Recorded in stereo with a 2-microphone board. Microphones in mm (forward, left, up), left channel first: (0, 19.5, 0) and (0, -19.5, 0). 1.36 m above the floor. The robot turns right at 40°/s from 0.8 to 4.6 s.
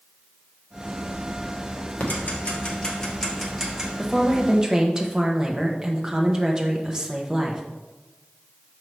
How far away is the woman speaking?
About 1.0 m.